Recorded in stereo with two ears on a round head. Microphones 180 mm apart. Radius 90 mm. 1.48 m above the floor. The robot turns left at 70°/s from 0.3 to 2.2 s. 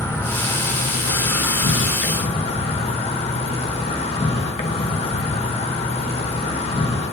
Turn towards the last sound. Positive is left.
turn(degrees=35)